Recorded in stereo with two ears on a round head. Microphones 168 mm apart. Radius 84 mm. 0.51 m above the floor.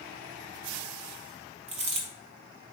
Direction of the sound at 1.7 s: 35° right (ahead or behind).